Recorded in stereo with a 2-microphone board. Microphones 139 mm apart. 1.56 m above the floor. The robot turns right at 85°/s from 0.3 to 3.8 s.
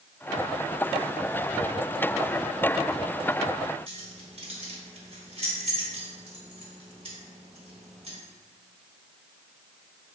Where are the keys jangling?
50° right (ahead or behind), 1.0 m.